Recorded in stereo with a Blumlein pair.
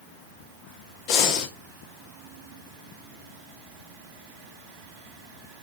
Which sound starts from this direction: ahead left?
Breathing, at 1.1 s.